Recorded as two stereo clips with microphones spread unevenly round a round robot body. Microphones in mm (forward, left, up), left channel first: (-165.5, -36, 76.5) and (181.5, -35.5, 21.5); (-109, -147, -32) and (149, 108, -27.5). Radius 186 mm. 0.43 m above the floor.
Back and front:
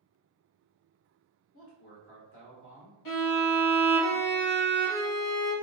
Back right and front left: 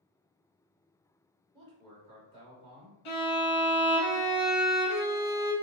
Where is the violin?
145° right, 1.0 m.